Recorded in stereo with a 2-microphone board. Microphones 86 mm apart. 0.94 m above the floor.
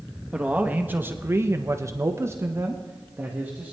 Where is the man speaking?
15° right (ahead or behind), 1.3 m; by 3.7 s 20° right (ahead or behind), 1.7 m.